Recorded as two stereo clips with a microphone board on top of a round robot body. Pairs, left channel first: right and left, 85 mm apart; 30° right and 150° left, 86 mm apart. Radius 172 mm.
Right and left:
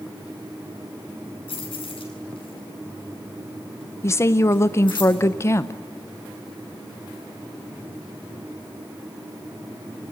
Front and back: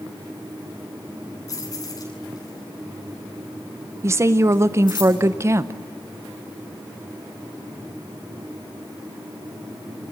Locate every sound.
1.5 s keys jangling: 80° right, 8 m; by 5.0 s 65° right, 8.5 m
4.0 s a woman speaking: 150° right, 0.7 m